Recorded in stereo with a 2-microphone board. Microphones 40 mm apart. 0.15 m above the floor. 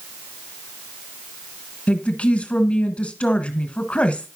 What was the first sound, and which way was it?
A woman speaking, 30° left (ahead or behind).